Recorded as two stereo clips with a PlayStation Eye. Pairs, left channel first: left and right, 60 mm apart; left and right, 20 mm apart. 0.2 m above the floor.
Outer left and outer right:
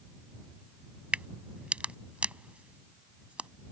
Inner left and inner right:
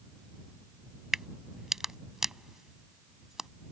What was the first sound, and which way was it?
A crack, 20° right (ahead or behind).